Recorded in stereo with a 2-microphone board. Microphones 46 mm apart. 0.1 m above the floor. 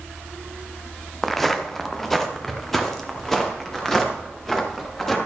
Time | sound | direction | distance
1.2 | footsteps | centre (ahead or behind) | 1.2 m